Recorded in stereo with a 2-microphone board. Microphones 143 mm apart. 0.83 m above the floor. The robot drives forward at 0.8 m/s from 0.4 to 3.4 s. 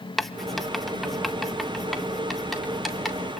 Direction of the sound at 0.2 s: Centre (ahead or behind).